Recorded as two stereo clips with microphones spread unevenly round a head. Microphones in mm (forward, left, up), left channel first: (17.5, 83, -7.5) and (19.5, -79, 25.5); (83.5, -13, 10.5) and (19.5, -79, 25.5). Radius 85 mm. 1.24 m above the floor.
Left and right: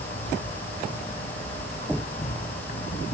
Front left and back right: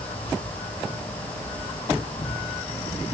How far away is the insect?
About 8.5 m.